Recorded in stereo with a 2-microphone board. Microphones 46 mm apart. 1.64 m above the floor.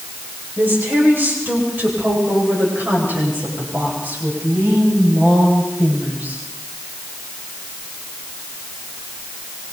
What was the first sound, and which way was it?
A woman speaking, 45° right (ahead or behind).